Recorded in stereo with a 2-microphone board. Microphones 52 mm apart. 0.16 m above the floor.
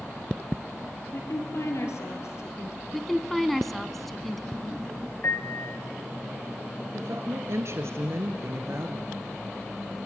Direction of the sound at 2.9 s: 5° left (ahead or behind).